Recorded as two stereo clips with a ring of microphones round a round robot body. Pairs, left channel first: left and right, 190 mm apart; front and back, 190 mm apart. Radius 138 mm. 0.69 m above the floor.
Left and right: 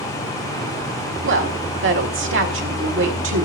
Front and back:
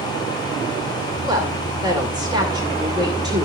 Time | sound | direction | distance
1.2 | a woman speaking | 105° right | 2 m